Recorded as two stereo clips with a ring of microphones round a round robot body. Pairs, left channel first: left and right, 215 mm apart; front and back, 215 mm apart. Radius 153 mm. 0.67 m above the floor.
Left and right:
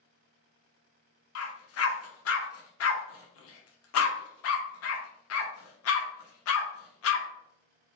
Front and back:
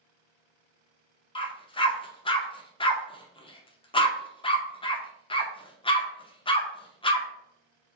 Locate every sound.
1.4 s a dog barking: 70° left, 0.6 m